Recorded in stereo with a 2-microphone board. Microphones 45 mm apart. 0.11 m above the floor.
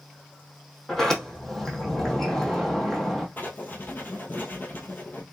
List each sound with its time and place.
0.9 s a sliding door: 10° left (ahead or behind), 1.3 m
3.4 s writing: 45° left (ahead or behind), 1.2 m